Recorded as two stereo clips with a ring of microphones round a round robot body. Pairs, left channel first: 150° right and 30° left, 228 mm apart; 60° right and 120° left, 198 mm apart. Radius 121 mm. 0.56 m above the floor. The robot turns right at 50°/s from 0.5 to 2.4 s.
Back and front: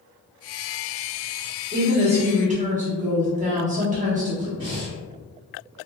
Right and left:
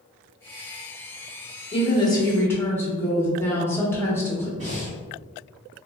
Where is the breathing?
90° left, 1.6 m.